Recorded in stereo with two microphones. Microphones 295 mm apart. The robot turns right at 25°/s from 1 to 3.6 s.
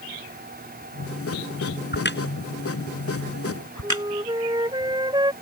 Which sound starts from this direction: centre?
A flute, at 3.8 s.